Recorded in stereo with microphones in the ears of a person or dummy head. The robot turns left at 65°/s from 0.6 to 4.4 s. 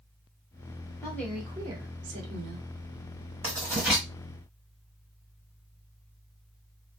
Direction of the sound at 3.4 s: 140° right.